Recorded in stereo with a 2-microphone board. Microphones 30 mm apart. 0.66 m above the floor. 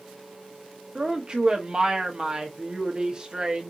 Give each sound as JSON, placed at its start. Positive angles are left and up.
{"t": 0.9, "sound": "a woman speaking", "side_deg": -30, "distance_m": 1.1}